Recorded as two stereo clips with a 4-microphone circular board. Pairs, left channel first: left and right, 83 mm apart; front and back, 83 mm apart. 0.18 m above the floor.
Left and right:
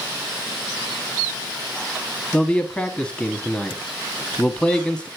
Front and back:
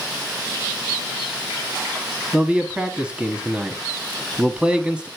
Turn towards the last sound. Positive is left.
turn(degrees=135)